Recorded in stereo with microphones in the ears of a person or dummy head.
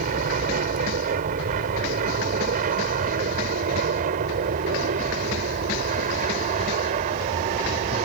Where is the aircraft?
45° right (ahead or behind); by 8.1 s 40° right (ahead or behind).